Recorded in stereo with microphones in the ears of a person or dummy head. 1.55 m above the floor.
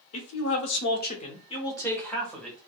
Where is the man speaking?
85° left, 0.8 m; by 2.6 s centre (ahead or behind), 1.1 m.